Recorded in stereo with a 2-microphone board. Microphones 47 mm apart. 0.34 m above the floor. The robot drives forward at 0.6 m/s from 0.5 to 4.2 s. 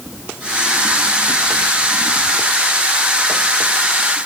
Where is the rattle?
No rattle in this recording.